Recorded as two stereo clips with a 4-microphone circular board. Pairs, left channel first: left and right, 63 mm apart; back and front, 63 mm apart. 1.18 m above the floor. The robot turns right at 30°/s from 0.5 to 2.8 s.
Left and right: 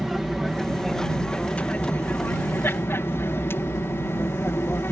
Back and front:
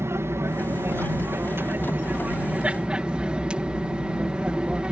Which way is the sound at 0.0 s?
Straight ahead.